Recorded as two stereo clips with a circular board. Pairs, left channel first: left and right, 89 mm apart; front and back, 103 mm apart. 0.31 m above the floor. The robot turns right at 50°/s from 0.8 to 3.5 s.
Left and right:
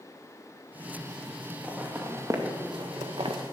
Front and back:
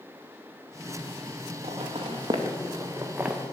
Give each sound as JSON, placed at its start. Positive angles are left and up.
{"t": 1.6, "sound": "footsteps", "azimuth_deg": -170, "distance_m": 2.0}